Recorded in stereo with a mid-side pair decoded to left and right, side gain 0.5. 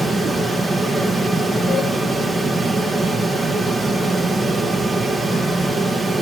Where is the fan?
15° right, 2 m.